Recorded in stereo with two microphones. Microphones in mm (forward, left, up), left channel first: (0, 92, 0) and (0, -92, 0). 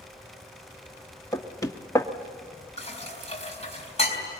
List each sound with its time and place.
1.3 s knocking: 20° left (ahead or behind), 1.0 m
2.8 s dishes clattering: 35° left (ahead or behind), 4 m